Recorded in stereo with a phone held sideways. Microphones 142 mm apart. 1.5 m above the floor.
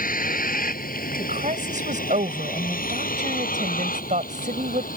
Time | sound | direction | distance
0.0 | a vehicle | 80° left | ?
1.2 | a woman speaking | 65° right (ahead or behind) | ?